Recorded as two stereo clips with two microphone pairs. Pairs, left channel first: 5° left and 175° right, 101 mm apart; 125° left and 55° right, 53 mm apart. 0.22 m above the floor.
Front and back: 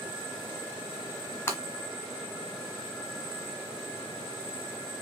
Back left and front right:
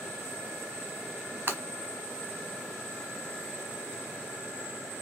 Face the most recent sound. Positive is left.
turn(degrees=-45)